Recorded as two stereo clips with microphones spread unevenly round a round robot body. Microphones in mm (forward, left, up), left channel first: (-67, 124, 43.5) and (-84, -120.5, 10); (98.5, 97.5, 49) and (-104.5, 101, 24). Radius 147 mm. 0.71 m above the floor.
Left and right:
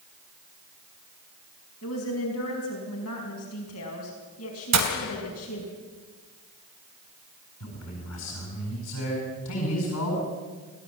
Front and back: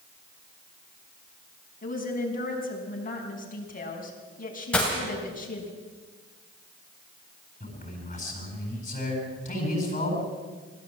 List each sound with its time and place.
1.8 s a woman speaking: 45° left, 5 m
4.7 s breaking glass: 85° right, 2.5 m
7.6 s a man speaking: 50° left, 8.5 m